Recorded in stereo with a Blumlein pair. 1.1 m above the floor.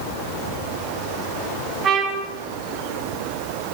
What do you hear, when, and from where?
1.8 s a trumpet: 25° right, 5.5 m